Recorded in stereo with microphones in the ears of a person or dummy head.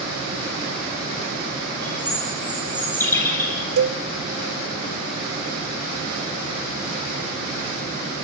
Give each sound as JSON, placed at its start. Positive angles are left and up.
{"t": 1.8, "sound": "a bird", "side_deg": 10, "distance_m": 10.0}
{"t": 3.8, "sound": "a cowbell", "side_deg": -75, "distance_m": 1.0}